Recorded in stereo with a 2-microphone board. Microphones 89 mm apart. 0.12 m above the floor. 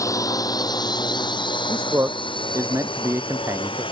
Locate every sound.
0.0 s a drone: 40° left (ahead or behind); by 3.9 s 80° left
1.7 s a man speaking: 35° right (ahead or behind)